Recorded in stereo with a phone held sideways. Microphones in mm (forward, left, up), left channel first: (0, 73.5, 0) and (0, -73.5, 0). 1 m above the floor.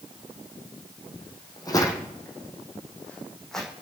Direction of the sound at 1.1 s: 35° left (ahead or behind).